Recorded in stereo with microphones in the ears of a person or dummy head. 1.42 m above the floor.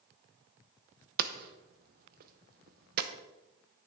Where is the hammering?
55° right (ahead or behind), 0.9 m.